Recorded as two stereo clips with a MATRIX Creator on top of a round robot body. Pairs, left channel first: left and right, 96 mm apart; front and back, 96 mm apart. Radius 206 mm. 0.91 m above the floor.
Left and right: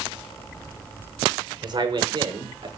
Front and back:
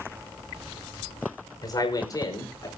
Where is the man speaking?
50° right, 5 m.